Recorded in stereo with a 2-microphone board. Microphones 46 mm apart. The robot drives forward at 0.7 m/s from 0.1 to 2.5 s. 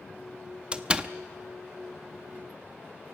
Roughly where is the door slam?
Right.